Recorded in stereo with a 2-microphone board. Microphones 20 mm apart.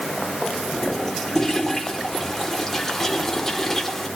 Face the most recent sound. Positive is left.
turn(degrees=15)  # may be behind; listen again after turning